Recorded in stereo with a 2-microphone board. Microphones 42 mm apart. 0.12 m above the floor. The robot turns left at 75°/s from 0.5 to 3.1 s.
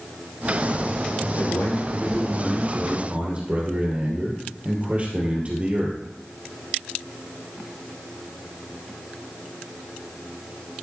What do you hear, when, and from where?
1.4 s a man speaking: 90° left, 3 m; by 6.0 s 40° right, 3 m